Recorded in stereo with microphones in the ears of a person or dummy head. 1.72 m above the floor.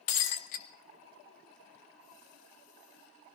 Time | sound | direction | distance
0.1 | breaking glass | 45° left (ahead or behind) | 1.2 m